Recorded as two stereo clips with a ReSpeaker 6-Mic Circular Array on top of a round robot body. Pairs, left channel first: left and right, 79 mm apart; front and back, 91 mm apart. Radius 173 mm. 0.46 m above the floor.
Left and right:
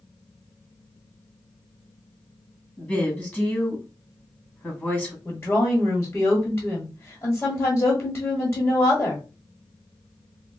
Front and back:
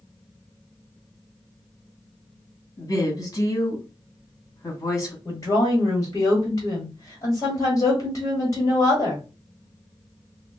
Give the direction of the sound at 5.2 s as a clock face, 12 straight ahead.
11 o'clock.